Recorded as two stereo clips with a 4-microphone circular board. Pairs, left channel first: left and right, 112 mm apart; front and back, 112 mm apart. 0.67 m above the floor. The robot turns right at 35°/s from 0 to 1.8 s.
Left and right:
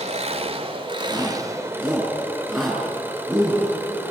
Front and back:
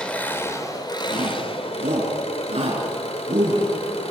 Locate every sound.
0.0 s an engine running: 80° right, 2 m; by 4.1 s 20° right, 2 m
1.1 s a shout: 150° left, 7 m; by 3.7 s 175° left, 7 m